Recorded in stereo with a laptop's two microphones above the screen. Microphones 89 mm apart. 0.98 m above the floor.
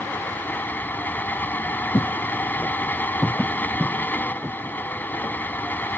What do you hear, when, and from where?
0.0 s a fan: 20° left (ahead or behind)
1.9 s footsteps: 35° left (ahead or behind); by 5.3 s 45° right (ahead or behind)